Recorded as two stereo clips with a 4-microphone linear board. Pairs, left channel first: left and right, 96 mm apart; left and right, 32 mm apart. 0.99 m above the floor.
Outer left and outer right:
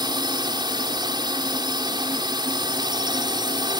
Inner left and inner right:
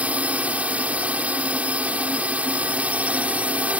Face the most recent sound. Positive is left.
turn(degrees=-55)  # may be behind; listen again after turning